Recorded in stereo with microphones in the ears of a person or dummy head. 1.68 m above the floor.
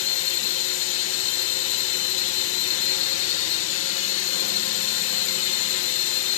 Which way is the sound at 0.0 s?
65° left (ahead or behind).